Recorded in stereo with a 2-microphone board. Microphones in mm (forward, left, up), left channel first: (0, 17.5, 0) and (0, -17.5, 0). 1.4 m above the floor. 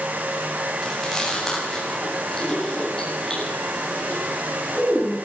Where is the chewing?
15° left (ahead or behind), 9.5 m.